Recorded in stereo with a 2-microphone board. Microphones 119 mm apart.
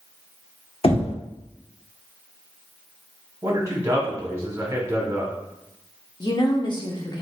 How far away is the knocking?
About 0.9 m.